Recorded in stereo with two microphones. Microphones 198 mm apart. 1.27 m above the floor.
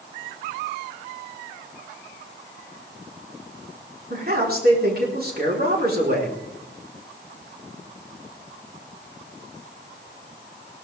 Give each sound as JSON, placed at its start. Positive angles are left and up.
{"t": 4.1, "sound": "a man speaking", "side_deg": -50, "distance_m": 4.5}